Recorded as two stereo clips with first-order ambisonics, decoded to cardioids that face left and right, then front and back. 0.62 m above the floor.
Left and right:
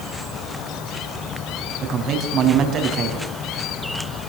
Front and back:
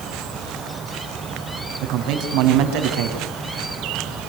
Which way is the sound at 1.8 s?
150° right.